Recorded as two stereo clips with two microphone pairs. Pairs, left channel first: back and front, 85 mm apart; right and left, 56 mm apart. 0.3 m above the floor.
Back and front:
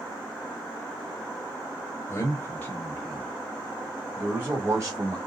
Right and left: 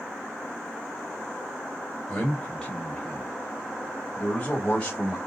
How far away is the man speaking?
About 1.4 m.